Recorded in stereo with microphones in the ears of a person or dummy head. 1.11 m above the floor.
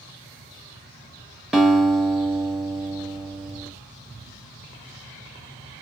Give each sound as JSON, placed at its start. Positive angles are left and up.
{"t": 1.5, "sound": "a guitar", "side_deg": 0, "distance_m": 0.8}